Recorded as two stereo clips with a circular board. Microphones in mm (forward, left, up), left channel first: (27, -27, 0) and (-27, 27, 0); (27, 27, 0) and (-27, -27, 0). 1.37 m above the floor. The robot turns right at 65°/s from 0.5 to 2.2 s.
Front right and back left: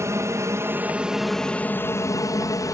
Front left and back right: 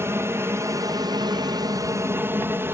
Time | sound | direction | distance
0.0 | an aircraft | 175° left | ?